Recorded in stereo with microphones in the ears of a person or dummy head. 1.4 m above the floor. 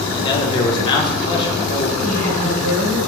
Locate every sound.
0.1 s a man speaking: 25° left (ahead or behind), 1.1 m
2.0 s a woman speaking: 75° right (ahead or behind), 2 m